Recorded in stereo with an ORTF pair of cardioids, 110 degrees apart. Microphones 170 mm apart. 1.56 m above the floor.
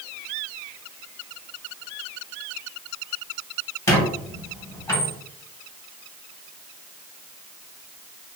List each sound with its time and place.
3.9 s a squeak: 15° left, 1.6 m